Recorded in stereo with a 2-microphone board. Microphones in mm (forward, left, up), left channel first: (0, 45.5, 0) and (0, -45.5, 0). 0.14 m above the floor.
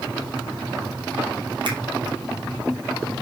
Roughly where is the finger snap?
Right.